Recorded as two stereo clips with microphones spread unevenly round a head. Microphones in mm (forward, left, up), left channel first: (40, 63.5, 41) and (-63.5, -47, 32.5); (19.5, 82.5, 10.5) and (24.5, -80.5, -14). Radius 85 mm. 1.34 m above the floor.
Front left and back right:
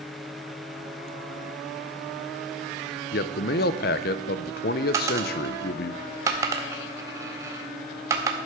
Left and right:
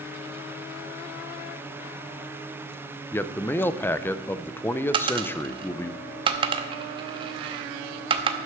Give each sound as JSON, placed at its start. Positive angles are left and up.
{"t": 3.1, "sound": "a man speaking", "azimuth_deg": 15, "distance_m": 0.6}
{"t": 4.9, "sound": "a dropped coin", "azimuth_deg": -85, "distance_m": 0.8}